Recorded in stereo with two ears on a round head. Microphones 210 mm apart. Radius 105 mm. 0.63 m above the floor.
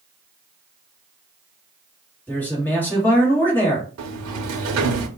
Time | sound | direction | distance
2.3 | a man speaking | 10° left (ahead or behind) | 1.2 m
4.0 | a sliding door | 70° right (ahead or behind) | 0.6 m